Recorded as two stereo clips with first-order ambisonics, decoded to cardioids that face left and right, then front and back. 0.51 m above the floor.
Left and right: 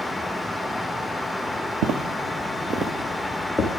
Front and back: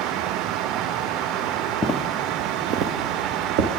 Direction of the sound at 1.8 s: 75° right.